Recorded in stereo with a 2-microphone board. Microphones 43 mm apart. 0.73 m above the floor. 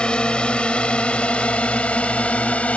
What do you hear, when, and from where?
0.0 s a drone: 25° left (ahead or behind); by 2.8 s 30° left (ahead or behind)